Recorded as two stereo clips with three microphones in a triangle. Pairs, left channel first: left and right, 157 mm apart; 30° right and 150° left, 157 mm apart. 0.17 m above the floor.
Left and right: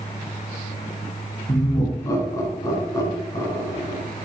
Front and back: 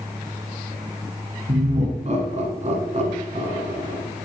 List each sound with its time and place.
1.5 s laughter: 150° left, 1.7 m